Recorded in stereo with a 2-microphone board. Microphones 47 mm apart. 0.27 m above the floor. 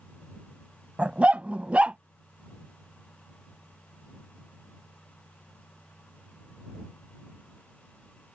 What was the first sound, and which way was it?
A dog barking, 30° right (ahead or behind).